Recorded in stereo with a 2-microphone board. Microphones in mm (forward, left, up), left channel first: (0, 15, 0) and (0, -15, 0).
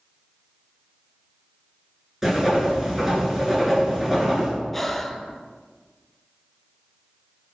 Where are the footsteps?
No footsteps in this recording.